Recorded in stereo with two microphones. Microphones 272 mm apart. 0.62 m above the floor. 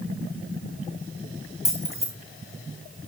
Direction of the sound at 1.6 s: 55° left (ahead or behind).